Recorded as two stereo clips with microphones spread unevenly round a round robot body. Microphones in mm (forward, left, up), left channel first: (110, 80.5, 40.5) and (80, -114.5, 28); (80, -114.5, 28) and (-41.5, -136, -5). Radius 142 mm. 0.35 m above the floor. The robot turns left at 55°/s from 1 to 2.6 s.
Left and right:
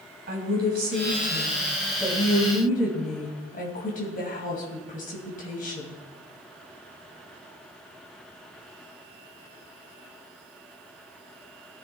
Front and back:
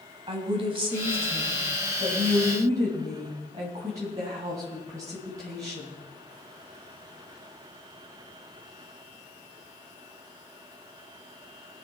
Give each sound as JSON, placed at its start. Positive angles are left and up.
{"t": 0.3, "sound": "a woman speaking", "azimuth_deg": -140, "distance_m": 2.5}